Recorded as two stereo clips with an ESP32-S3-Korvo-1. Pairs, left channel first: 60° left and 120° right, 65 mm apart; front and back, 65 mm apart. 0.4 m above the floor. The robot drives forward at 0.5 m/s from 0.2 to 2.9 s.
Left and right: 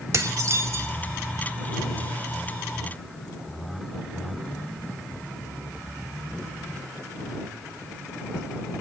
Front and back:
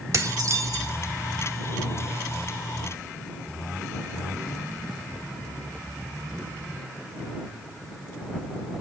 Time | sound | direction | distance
0.1 | dishes clattering | 150° right | 1.2 m